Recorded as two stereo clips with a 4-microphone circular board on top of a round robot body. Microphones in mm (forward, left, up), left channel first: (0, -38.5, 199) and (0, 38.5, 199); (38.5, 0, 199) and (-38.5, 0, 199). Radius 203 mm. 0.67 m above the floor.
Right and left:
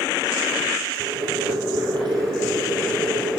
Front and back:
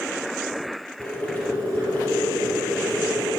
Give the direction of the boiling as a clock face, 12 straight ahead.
10 o'clock.